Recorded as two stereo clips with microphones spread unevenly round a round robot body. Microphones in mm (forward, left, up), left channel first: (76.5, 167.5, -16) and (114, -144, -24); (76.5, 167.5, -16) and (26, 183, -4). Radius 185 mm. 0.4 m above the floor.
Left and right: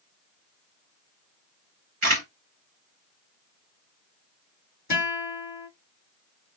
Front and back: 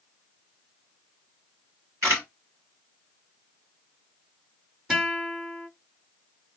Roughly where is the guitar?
Left.